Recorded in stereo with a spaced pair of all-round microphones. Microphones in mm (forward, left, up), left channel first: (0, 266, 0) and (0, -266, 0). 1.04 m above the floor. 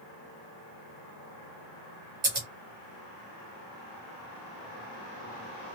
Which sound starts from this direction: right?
Scissors, at 2.2 s.